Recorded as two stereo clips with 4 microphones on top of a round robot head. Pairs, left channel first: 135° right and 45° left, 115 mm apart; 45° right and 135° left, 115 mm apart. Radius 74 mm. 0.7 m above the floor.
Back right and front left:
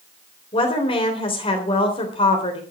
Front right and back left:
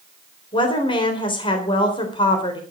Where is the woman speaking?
95° right, 3.5 m.